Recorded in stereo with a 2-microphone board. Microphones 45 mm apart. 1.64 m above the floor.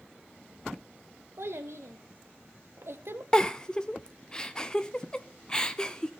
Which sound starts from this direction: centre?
A giggle, at 3.3 s.